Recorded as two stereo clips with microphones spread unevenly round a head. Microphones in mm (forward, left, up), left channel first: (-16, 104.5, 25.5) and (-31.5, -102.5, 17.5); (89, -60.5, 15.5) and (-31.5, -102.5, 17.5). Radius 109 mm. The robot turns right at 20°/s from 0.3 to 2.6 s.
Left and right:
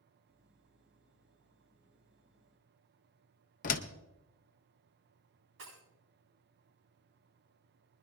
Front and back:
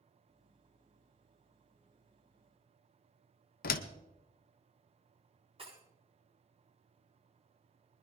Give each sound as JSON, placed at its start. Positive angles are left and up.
{"t": 3.6, "sound": "a door slam", "azimuth_deg": 30, "distance_m": 0.7}
{"t": 5.6, "sound": "breaking glass", "azimuth_deg": -115, "distance_m": 8.0}